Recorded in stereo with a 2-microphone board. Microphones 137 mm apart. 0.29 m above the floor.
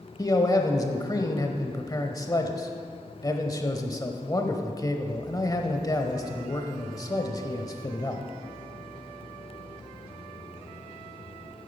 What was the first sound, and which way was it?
A man speaking, 25° left (ahead or behind).